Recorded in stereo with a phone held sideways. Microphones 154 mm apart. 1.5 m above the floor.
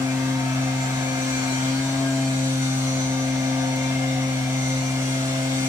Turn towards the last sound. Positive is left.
turn(degrees=-20)  # may be behind; listen again after turning